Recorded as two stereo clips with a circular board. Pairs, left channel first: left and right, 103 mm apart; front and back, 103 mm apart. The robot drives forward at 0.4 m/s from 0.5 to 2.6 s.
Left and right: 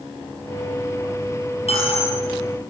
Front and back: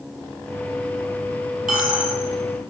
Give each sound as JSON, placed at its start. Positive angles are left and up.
{"t": 1.7, "sound": "a dropped coin", "azimuth_deg": 100, "distance_m": 5.0}